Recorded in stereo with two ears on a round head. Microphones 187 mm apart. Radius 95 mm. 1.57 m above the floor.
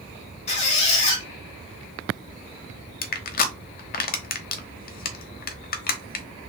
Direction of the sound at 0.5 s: 30° left (ahead or behind).